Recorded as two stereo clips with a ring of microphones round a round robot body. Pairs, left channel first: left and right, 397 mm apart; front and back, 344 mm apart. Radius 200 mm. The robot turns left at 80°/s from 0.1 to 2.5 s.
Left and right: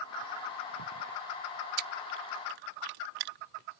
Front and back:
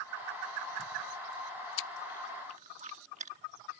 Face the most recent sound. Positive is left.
turn(degrees=-110)